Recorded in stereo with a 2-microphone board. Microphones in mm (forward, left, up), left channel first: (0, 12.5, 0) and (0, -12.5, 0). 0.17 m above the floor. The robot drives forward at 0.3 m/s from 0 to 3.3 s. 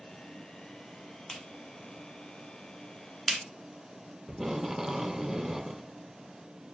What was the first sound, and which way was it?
A clap, 20° left (ahead or behind).